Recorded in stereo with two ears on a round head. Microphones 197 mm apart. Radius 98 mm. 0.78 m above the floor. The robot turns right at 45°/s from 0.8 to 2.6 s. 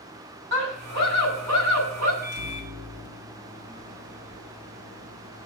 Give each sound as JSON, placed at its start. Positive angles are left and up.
{"t": 0.5, "sound": "a scream", "azimuth_deg": -125, "distance_m": 7.5}
{"t": 2.2, "sound": "a microwave", "side_deg": -50, "distance_m": 2.0}